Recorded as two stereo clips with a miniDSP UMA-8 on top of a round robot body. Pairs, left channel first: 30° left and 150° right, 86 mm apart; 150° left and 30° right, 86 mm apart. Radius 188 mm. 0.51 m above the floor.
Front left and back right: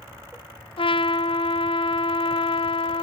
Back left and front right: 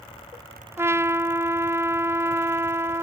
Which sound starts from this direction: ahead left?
A trumpet, at 0.8 s.